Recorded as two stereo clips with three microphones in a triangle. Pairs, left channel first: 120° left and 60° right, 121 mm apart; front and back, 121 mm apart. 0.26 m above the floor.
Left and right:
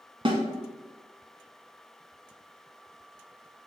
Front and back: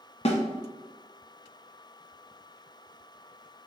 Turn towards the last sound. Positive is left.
turn(degrees=-20)